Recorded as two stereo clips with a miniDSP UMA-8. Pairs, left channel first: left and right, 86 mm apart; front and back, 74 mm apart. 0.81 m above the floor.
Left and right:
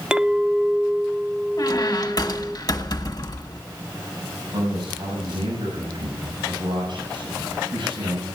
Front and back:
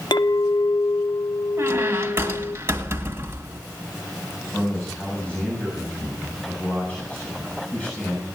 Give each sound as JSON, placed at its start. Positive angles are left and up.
{"t": 0.1, "sound": "a clink", "azimuth_deg": -10, "distance_m": 0.7}
{"t": 1.6, "sound": "a squeak", "azimuth_deg": 130, "distance_m": 1.7}
{"t": 4.5, "sound": "a man speaking", "azimuth_deg": -70, "distance_m": 6.5}